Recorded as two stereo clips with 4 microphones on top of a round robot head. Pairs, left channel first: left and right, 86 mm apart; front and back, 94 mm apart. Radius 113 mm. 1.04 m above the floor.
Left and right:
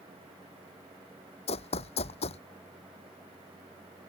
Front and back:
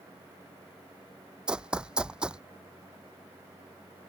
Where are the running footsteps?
105° left.